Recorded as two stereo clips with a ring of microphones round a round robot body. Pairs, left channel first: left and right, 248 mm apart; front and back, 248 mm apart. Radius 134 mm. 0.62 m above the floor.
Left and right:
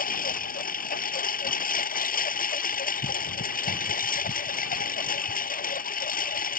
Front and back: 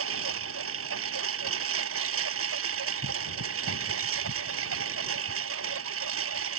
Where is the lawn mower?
145° left.